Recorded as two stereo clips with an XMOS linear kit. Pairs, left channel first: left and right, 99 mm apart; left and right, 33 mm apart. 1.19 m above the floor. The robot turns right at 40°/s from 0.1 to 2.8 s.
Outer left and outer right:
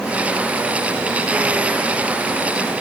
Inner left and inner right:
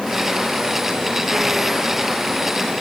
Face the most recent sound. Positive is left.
No sound to turn to.